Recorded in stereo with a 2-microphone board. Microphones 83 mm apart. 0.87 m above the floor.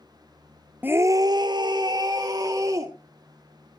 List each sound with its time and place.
0.8 s a scream: 20° right (ahead or behind), 0.6 m; by 2.9 s 45° right (ahead or behind), 1.9 m